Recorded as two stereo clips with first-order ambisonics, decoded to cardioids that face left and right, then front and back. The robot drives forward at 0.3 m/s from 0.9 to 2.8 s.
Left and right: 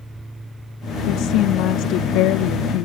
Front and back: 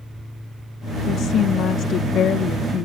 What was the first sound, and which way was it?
A woman speaking, 55° left.